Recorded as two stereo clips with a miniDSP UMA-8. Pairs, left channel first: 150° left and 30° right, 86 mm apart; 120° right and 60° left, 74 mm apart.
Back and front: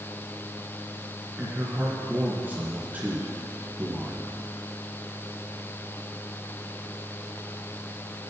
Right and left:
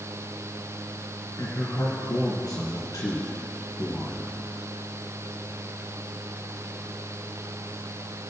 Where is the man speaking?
95° right, 3.5 m.